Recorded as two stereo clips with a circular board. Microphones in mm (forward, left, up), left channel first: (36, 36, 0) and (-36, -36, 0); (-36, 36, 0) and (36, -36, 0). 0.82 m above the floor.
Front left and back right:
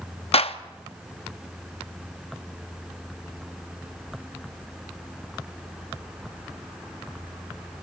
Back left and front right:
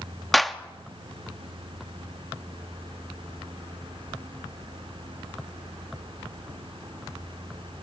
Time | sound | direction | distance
0.3 | a clap | 45° left | 0.8 m